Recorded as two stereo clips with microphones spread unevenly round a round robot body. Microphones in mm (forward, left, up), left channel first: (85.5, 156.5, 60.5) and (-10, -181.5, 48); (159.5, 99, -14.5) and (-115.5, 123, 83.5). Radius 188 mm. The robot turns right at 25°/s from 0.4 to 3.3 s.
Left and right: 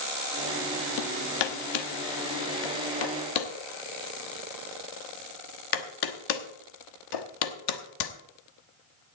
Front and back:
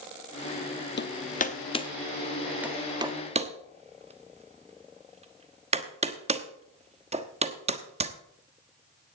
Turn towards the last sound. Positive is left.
turn(degrees=105)